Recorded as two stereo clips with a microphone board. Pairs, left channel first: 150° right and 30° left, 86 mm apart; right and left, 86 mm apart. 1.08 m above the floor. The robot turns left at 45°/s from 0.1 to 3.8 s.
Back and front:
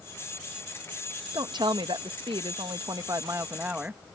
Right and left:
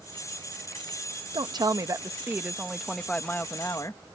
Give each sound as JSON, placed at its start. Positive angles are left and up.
{"t": 1.3, "sound": "a woman speaking", "azimuth_deg": 70}